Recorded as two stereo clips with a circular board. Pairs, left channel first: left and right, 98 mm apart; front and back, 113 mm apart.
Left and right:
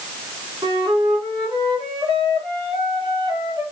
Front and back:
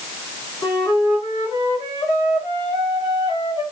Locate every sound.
0.6 s a flute: 55° right, 2.5 m